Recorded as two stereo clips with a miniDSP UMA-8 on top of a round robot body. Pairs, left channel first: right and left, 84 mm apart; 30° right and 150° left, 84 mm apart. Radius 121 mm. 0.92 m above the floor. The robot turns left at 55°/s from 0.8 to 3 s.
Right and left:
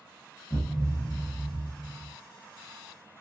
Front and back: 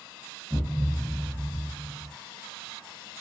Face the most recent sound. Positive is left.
turn(degrees=105)